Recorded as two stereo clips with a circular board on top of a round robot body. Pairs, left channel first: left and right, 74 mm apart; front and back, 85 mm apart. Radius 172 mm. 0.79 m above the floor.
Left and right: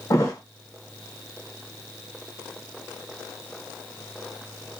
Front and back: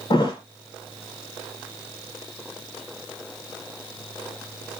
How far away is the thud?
About 0.8 m.